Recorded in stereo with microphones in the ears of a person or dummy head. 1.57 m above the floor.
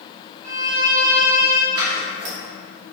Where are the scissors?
70° right (ahead or behind), 1.6 m.